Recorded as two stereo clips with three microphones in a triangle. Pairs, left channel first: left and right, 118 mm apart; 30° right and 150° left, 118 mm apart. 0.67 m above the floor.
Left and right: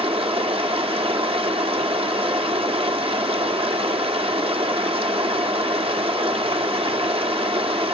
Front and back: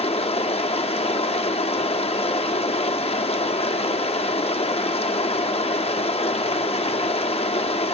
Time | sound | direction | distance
0.0 | running water | 55° right | 0.8 m